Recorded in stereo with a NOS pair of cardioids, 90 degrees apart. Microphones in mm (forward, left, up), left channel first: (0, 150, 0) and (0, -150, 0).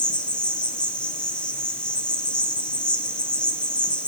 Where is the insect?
5° left, 1.9 m.